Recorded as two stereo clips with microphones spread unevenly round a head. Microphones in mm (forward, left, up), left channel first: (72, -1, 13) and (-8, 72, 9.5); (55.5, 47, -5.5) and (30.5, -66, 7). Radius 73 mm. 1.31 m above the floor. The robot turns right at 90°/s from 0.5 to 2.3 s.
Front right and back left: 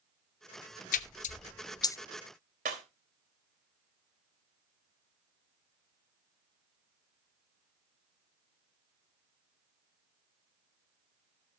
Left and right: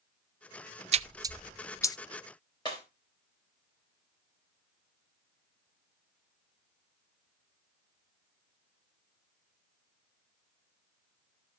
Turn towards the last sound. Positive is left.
turn(degrees=145)